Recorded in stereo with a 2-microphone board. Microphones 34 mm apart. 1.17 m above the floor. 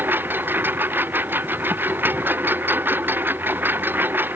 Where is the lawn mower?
70° right (ahead or behind).